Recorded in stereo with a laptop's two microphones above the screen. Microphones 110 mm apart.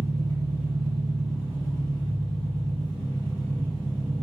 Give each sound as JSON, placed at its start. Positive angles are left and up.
{"t": 0.0, "sound": "an engine running", "side_deg": 20, "distance_m": 1.8}